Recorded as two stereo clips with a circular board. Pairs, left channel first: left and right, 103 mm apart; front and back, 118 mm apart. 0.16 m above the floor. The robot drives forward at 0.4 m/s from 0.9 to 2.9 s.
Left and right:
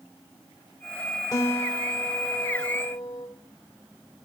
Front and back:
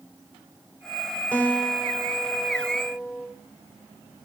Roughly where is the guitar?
Left.